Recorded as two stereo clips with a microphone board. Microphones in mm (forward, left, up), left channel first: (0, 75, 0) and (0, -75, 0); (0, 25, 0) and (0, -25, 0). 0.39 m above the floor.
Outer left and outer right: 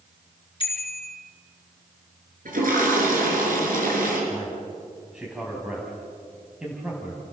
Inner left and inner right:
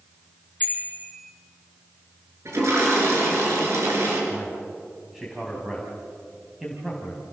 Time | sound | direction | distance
0.6 | a bicycle bell | 35° left (ahead or behind) | 3.5 m
2.5 | a toilet flushing | 70° right (ahead or behind) | 5.5 m
4.3 | a man speaking | 5° right (ahead or behind) | 3 m